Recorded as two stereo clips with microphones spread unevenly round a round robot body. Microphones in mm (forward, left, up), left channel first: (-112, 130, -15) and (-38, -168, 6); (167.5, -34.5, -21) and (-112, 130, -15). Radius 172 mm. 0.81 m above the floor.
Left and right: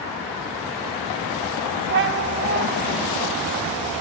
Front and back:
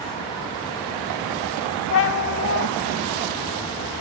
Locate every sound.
1.9 s a cat meowing: 50° right, 0.8 m